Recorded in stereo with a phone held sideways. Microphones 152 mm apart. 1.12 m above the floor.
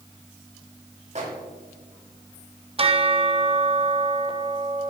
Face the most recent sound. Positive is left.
turn(degrees=-40)  # may be behind; listen again after turning